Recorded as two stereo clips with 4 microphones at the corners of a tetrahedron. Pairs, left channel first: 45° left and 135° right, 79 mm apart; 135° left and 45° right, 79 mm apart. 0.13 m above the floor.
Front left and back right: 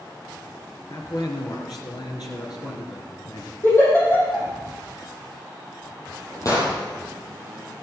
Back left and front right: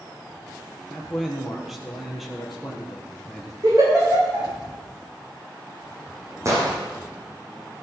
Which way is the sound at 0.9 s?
40° left.